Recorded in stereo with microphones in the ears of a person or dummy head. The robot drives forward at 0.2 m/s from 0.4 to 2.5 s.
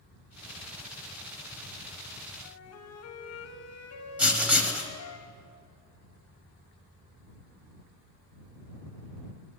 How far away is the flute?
About 0.7 m.